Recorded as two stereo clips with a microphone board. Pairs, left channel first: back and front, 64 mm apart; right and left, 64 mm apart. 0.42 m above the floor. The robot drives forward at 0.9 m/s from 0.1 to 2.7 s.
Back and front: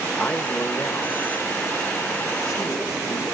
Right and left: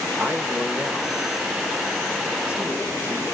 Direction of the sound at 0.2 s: 120° left.